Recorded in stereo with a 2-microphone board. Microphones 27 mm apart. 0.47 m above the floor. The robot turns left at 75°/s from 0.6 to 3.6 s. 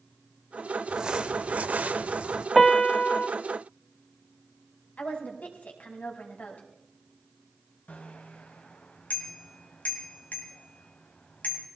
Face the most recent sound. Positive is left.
turn(degrees=65)  # may be behind; listen again after turning